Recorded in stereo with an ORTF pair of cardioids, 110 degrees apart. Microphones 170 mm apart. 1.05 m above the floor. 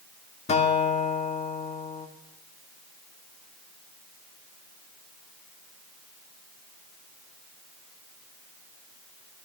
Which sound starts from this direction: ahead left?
A guitar, at 0.5 s.